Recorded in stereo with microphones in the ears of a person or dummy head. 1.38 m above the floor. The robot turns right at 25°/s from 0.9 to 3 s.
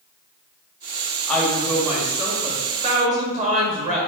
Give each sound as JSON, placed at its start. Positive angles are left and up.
{"t": 1.3, "sound": "a woman speaking", "azimuth_deg": 175, "distance_m": 1.7}